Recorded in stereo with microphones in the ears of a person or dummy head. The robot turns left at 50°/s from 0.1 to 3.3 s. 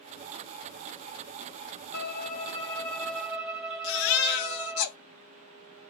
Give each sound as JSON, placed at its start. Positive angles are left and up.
{"t": 1.9, "sound": "a violin", "azimuth_deg": 65, "distance_m": 2.5}
{"t": 3.8, "sound": "a baby crying", "side_deg": 50, "distance_m": 0.8}